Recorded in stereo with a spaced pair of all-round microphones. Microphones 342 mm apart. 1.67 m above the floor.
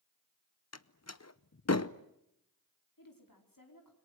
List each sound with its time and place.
0.7 s a door slam: 50° left (ahead or behind), 0.8 m
3.0 s a woman speaking: 85° left, 4.5 m